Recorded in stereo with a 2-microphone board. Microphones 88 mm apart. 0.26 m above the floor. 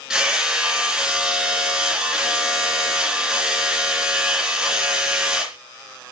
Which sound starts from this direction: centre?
Hammering, at 0.1 s.